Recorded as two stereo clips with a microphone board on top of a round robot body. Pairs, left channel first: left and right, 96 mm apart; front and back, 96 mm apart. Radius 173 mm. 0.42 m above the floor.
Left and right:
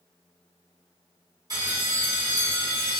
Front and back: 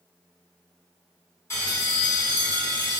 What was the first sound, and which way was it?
A bell, 55° right.